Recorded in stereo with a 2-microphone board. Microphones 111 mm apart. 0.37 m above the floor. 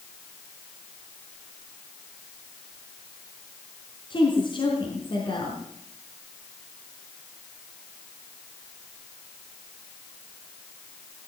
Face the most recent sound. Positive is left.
turn(degrees=45)  # may be behind; listen again after turning